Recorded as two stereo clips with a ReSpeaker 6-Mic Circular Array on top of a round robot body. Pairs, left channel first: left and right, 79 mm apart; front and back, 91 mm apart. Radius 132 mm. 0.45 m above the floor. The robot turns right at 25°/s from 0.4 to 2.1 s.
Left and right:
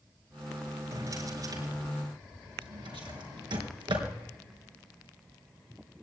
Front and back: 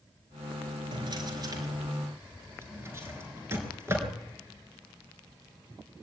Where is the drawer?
145° right, 4 m; by 4.1 s 115° right, 4 m.